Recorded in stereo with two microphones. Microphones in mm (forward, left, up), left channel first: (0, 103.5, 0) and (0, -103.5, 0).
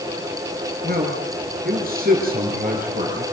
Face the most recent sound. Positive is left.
turn(degrees=-45)  # may be behind; listen again after turning